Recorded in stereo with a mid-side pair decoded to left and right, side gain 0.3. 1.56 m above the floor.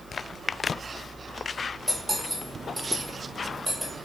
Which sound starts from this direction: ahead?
Cutlery clinking, at 1.9 s.